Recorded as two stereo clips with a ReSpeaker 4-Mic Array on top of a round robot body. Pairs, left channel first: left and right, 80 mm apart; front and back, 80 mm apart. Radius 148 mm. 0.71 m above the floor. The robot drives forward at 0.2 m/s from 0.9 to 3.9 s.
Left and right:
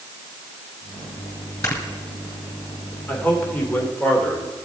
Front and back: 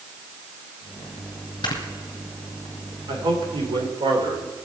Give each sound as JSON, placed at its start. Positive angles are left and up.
{"t": 1.6, "sound": "snoring", "azimuth_deg": 35, "distance_m": 2.0}
{"t": 3.1, "sound": "a man speaking", "azimuth_deg": 160, "distance_m": 2.5}